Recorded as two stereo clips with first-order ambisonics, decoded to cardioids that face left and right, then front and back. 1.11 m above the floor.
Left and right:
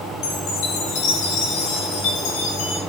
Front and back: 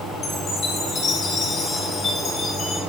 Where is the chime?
65° left, 7 m.